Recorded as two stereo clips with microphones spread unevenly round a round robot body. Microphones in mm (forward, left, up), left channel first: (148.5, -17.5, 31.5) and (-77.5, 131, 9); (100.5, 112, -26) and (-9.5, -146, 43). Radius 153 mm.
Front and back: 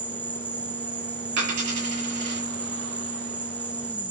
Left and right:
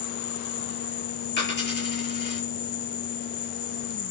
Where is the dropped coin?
125° left, 8 m.